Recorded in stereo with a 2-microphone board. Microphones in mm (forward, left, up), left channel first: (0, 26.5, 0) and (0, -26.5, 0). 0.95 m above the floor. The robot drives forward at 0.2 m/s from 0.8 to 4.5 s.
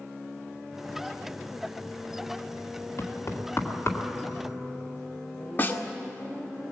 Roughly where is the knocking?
Left.